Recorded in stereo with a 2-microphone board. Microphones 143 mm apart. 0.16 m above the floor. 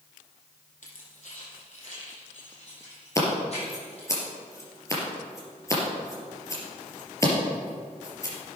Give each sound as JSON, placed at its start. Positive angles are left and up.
{"t": 0.8, "sound": "keys jangling", "side_deg": 60, "distance_m": 4.0}
{"t": 3.1, "sound": "scissors", "side_deg": 20, "distance_m": 3.5}